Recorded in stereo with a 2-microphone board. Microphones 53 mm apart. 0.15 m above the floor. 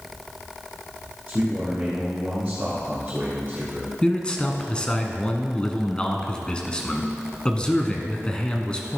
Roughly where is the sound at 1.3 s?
Right.